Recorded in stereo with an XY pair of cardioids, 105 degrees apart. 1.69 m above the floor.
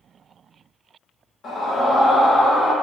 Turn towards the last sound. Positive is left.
turn(degrees=65)